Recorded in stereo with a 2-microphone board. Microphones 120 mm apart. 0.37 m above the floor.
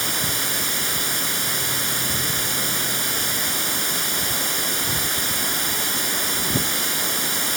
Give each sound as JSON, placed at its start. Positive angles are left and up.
{"t": 0.0, "sound": "running water", "side_deg": 0}